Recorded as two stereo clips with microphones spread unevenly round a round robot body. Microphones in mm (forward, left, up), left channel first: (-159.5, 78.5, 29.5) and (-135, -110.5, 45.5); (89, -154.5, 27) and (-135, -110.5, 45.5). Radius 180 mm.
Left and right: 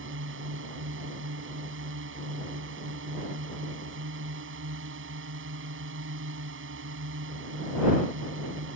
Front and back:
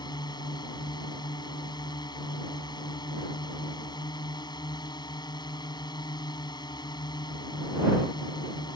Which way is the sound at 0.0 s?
85° right.